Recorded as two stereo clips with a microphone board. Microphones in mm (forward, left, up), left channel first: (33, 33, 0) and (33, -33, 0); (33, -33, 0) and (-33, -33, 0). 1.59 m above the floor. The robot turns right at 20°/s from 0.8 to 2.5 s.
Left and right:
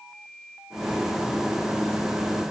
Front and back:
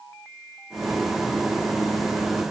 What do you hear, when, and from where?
Only background noise.